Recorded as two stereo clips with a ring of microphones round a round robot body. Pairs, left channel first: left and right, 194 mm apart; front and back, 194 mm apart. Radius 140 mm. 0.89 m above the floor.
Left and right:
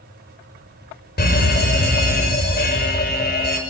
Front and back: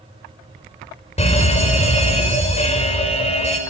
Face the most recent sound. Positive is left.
turn(degrees=55)